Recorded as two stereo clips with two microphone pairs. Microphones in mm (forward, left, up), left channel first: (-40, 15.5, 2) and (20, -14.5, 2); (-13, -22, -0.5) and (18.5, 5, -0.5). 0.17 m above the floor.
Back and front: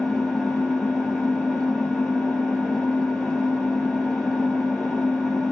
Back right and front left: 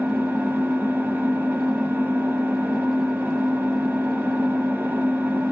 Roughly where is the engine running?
Ahead left.